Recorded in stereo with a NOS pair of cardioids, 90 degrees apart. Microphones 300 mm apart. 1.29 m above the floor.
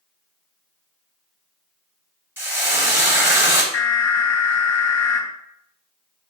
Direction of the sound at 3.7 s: 60° left.